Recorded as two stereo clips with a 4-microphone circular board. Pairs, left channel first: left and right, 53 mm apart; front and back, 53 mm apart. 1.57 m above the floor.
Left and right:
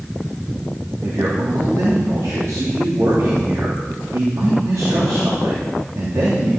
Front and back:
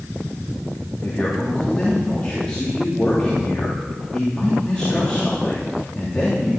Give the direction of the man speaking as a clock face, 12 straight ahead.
2 o'clock.